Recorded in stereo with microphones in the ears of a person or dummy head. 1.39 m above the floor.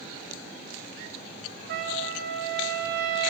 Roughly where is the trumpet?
Right.